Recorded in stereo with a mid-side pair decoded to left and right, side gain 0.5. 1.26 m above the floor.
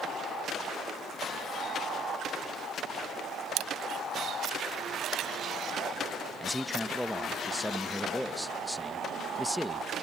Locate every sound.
3.6 s a camera shutter: 65° right
6.4 s a man speaking: 5° left